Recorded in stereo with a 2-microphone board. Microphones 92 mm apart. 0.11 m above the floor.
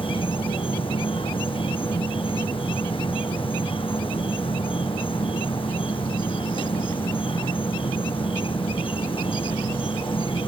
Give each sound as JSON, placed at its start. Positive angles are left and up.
{"t": 0.0, "sound": "an insect", "side_deg": 75}